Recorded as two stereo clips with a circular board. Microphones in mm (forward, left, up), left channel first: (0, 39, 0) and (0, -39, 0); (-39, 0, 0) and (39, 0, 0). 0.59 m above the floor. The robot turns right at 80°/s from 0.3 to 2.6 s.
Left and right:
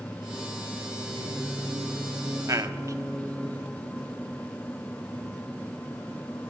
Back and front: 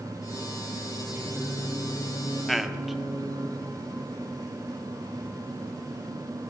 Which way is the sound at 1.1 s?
60° left.